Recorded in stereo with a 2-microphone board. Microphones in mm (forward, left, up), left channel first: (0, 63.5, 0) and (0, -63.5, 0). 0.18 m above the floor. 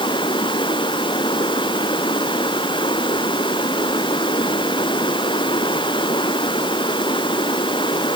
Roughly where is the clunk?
I don't hear a clunk.